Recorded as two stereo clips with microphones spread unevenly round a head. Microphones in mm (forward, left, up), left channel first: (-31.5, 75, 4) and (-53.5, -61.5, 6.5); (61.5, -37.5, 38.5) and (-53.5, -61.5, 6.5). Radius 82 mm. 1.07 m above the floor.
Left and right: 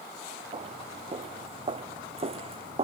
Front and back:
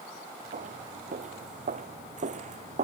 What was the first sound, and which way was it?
Footsteps, 145° right.